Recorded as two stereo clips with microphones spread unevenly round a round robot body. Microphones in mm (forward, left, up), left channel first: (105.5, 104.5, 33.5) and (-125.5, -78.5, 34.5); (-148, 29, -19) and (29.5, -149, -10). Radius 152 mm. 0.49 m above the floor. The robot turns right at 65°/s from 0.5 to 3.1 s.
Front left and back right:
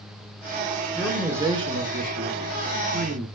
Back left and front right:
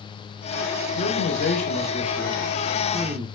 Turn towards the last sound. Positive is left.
turn(degrees=-105)